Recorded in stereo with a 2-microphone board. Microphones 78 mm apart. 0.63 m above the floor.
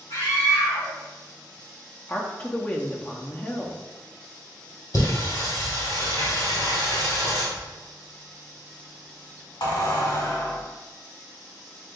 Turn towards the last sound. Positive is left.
turn(degrees=80)